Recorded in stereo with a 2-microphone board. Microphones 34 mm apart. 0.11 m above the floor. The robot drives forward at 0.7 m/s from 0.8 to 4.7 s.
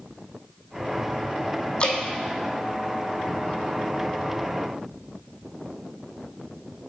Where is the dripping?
35° left (ahead or behind), 1.1 m; by 2.0 s 40° left (ahead or behind), 1.0 m.